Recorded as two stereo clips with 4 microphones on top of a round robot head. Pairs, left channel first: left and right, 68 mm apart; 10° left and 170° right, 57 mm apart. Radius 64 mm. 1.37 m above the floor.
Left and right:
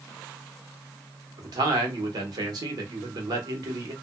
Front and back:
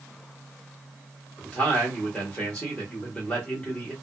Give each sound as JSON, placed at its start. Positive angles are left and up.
{"t": 1.4, "sound": "a man speaking", "azimuth_deg": -65, "distance_m": 1.2}